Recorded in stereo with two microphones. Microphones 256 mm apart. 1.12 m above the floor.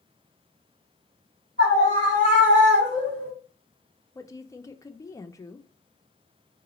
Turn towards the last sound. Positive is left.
turn(degrees=15)  # may be behind; listen again after turning